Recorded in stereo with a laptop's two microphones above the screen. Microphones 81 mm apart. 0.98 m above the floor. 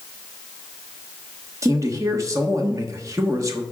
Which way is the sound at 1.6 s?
40° right (ahead or behind).